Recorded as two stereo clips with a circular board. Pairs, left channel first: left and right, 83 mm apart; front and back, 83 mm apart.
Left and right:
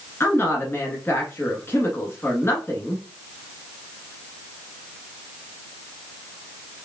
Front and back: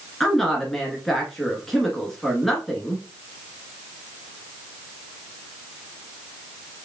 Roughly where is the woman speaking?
Left.